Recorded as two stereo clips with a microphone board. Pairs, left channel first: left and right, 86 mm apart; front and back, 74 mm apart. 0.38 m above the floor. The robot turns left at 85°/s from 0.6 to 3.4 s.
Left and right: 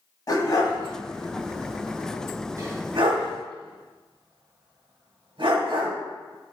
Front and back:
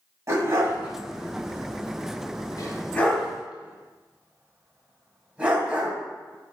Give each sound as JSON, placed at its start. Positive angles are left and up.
{"t": 0.3, "sound": "a dog barking", "azimuth_deg": 135, "distance_m": 1.2}